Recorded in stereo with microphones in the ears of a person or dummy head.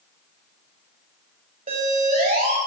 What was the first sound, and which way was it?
A siren, 35° right (ahead or behind).